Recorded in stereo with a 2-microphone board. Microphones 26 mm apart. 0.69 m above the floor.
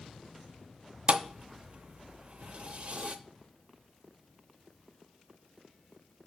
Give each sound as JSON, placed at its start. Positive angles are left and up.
{"t": 1.1, "sound": "a thud", "side_deg": -50, "distance_m": 0.5}